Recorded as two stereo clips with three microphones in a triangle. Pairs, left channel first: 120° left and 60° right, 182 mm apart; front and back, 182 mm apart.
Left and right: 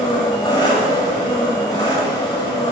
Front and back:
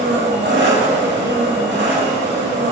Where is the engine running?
175° right, 2.5 m.